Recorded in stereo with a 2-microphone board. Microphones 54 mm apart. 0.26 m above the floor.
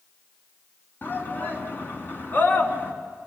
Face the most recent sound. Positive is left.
turn(degrees=40)  # may be behind; listen again after turning